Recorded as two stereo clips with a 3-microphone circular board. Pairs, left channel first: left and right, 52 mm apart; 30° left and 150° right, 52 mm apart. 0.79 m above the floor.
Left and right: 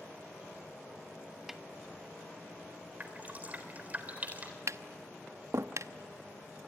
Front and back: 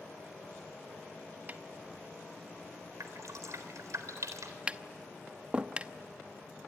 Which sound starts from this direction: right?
Tapping, at 4.7 s.